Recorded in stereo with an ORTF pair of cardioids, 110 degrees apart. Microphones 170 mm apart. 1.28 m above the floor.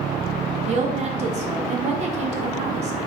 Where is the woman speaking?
40° right, 0.7 m.